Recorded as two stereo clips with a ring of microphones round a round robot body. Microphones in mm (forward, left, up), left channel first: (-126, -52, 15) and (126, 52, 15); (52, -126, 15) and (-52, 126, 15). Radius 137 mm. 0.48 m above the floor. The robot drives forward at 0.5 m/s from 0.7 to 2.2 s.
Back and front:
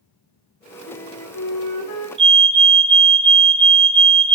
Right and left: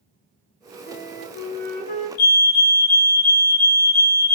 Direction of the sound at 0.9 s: 120° right.